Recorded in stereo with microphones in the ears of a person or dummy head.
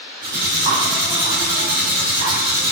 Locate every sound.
0.2 s cutlery clinking: 55° right (ahead or behind), 1.5 m